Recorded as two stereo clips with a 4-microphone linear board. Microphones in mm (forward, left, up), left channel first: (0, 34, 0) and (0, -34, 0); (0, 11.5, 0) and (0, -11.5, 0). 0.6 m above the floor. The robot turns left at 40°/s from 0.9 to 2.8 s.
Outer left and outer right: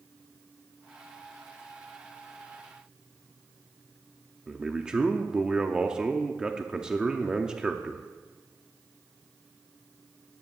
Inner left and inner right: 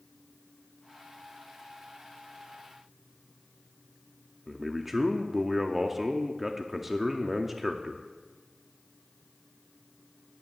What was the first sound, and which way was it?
A man speaking, 10° right (ahead or behind).